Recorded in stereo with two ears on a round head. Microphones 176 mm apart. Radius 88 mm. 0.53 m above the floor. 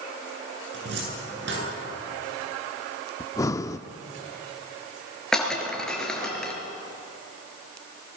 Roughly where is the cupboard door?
Right.